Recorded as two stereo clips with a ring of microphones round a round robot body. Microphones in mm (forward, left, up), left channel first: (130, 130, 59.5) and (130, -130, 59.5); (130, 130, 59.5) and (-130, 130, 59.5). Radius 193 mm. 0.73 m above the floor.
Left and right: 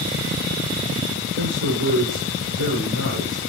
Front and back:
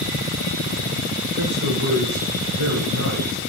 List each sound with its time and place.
1.4 s a man speaking: 135° right, 2 m